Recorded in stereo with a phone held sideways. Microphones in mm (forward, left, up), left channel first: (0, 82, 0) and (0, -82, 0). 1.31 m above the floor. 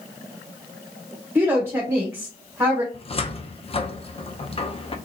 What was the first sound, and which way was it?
A woman speaking, 15° right (ahead or behind).